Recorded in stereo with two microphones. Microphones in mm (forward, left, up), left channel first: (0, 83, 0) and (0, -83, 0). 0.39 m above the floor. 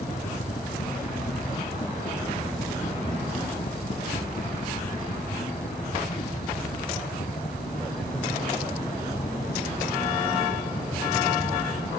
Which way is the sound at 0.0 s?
45° left (ahead or behind).